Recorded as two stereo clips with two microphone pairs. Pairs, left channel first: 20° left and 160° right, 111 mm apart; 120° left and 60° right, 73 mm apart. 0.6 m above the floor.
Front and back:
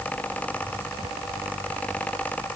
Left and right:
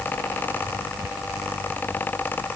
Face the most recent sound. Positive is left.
No sound to turn to.